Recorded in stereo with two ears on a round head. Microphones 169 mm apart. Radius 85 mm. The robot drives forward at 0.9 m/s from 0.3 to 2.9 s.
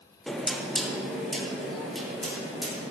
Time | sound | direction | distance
0.3 | knocking | centre (ahead or behind) | 0.8 m